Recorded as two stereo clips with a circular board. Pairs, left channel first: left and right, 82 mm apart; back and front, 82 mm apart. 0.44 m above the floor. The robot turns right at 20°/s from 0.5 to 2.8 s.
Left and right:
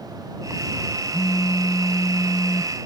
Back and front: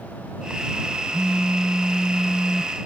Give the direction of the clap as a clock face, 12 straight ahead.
No clap in this recording.